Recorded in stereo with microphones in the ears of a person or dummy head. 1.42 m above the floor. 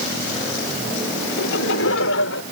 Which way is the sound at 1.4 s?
70° left (ahead or behind).